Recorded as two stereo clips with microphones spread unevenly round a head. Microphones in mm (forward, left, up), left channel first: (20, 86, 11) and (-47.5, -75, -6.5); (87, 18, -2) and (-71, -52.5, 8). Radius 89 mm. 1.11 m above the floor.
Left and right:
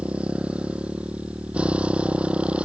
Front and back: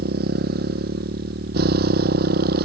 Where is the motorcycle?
165° left.